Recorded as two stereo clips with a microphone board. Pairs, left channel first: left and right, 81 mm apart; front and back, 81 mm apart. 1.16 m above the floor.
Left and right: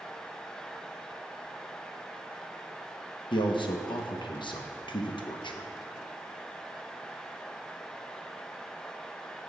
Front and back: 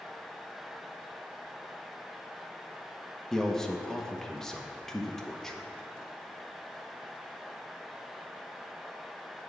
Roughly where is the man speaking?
Left.